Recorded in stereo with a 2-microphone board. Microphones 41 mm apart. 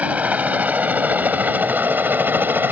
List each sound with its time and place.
0.0 s a helicopter: 40° right (ahead or behind); by 2.7 s 60° right (ahead or behind)